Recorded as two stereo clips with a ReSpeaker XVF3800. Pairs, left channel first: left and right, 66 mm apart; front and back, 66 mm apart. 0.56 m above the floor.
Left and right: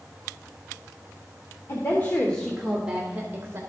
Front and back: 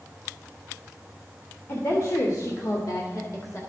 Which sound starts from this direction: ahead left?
A woman speaking, at 1.7 s.